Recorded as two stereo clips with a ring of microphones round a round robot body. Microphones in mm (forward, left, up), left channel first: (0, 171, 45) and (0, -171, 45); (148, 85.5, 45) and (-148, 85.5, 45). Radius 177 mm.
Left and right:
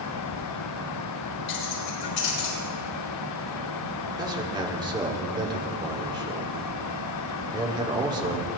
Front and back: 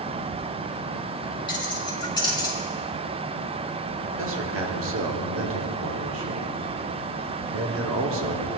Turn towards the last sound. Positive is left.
turn(degrees=-165)